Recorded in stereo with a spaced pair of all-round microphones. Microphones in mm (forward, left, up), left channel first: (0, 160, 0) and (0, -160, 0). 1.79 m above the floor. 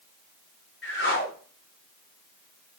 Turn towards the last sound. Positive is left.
turn(degrees=40)  # may be behind; listen again after turning